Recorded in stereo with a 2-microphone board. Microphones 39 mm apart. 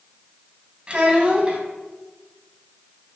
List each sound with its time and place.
0.9 s a child speaking: 30° right (ahead or behind), 0.7 m